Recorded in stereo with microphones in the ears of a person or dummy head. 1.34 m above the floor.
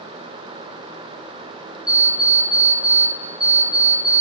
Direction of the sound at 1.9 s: 5° right (ahead or behind).